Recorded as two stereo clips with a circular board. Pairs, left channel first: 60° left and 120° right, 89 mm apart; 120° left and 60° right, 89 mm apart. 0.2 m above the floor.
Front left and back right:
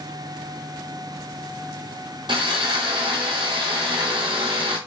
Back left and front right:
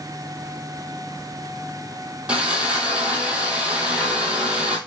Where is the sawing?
135° right, 1.1 m.